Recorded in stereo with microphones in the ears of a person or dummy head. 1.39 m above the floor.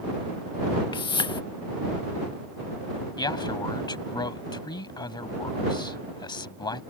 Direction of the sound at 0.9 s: 25° left (ahead or behind).